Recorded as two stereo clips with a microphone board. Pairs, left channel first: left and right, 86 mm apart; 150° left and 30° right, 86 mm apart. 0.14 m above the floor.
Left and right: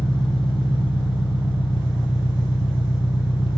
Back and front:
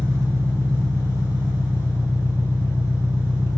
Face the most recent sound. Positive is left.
turn(degrees=95)